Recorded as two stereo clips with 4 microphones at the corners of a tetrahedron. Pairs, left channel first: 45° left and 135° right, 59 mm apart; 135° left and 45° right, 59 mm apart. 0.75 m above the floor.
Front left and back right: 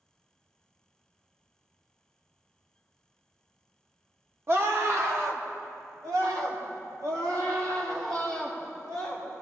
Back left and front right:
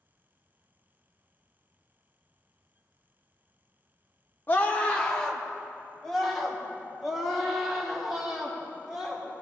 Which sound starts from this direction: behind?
A scream, at 4.5 s.